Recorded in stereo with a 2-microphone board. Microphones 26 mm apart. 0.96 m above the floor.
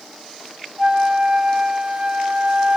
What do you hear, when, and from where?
0.8 s a flute: 40° right (ahead or behind), 1.1 m